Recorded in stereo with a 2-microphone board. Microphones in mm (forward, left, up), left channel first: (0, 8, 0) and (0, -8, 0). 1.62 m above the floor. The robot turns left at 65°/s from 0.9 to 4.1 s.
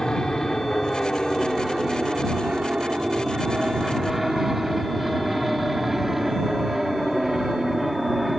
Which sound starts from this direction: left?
An aircraft, at 0.0 s.